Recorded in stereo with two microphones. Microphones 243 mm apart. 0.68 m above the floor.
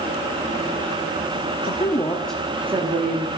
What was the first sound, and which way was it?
A woman speaking, 40° left (ahead or behind).